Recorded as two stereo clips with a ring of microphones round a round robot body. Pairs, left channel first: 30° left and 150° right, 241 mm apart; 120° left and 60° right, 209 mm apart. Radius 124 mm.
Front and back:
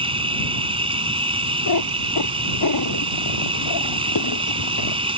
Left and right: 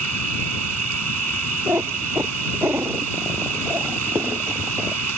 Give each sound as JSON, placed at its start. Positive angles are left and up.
{"t": 0.0, "sound": "an insect", "azimuth_deg": -80}
{"t": 1.7, "sound": "a cat meowing", "azimuth_deg": 20}